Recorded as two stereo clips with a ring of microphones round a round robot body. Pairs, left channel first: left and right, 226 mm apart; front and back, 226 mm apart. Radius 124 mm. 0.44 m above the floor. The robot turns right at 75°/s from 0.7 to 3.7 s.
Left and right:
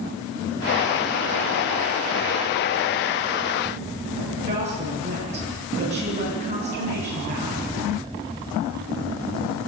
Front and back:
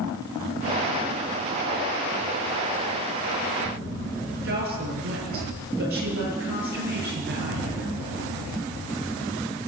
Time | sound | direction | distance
4.4 | a woman speaking | 150° right | 8 m